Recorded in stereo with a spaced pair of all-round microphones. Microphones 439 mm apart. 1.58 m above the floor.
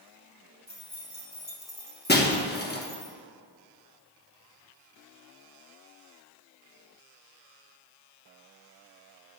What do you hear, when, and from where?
0.7 s keys jangling: 70° left (ahead or behind), 1.8 m
2.1 s breaking glass: 25° left (ahead or behind), 0.9 m